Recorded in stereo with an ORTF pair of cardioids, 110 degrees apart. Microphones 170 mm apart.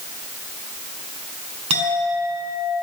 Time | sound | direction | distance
1.7 | a clink | 45° right | 6.5 m